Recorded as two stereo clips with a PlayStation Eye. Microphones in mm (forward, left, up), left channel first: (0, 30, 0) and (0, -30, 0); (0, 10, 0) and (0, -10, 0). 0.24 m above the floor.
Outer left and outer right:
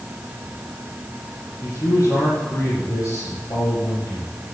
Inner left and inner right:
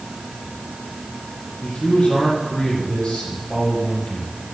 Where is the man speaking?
60° left (ahead or behind), 7.5 m.